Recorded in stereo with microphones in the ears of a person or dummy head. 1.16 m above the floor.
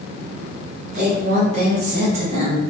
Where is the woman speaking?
35° right (ahead or behind), 1.2 m; by 2.6 s 25° right (ahead or behind), 0.6 m.